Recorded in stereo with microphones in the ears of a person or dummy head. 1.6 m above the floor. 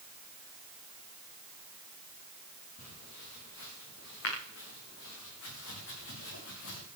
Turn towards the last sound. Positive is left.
turn(degrees=75)  # may be behind; listen again after turning